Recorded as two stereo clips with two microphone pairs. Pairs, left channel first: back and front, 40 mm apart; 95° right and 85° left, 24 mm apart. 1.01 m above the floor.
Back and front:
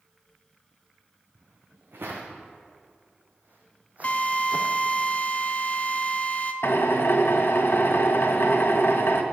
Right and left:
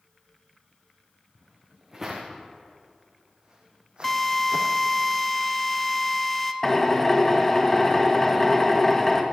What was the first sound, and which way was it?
Footsteps, straight ahead.